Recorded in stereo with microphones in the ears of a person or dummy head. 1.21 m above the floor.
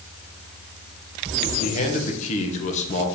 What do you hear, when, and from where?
1.6 s a man speaking: 40° left (ahead or behind), 1.2 m